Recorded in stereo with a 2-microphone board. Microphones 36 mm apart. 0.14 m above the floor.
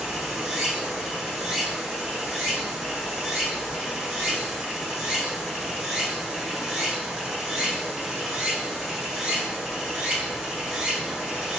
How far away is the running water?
About 2.5 m.